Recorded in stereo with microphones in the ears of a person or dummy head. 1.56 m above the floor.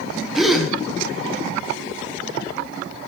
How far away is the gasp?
About 0.9 m.